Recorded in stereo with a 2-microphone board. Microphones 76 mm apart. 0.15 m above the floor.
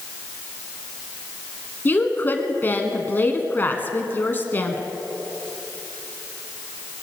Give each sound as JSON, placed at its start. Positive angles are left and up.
{"t": 1.9, "sound": "a woman speaking", "side_deg": 25, "distance_m": 1.4}